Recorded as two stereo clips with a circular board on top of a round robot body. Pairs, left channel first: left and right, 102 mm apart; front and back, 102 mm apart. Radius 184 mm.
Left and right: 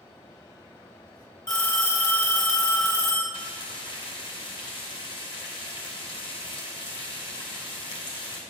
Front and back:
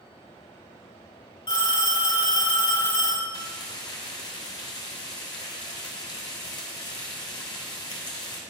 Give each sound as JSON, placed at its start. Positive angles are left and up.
{"t": 1.5, "sound": "a phone ringing", "azimuth_deg": 45, "distance_m": 3.0}
{"t": 3.3, "sound": "frying", "azimuth_deg": 50, "distance_m": 1.1}